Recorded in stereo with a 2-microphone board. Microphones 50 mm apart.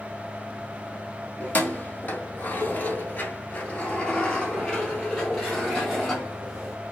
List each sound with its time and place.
1.4 s keys jangling: 35° left (ahead or behind), 1.1 m; by 6.8 s 10° left (ahead or behind), 2.5 m